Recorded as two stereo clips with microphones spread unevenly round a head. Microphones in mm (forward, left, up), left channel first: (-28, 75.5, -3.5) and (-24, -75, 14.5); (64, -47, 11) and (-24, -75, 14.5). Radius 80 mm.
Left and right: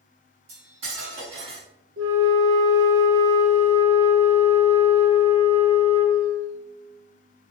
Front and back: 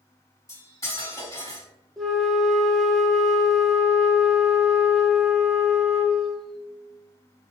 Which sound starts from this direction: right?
A flute, at 2.0 s.